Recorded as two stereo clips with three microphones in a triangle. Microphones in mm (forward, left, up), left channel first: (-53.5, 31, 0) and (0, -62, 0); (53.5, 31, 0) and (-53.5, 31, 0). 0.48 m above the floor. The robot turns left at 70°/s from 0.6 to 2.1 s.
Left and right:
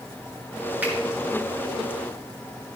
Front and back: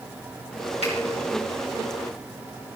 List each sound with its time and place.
0.8 s a finger snap: 15° left, 5 m; by 0.9 s 10° left, 5 m